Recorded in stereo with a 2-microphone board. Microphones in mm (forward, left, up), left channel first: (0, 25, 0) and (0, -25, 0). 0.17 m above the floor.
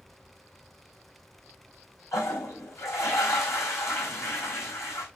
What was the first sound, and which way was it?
A toilet flushing, 75° left (ahead or behind).